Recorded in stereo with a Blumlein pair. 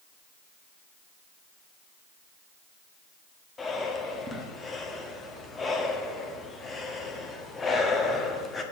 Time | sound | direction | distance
3.6 | breathing | 15° left | 1.5 m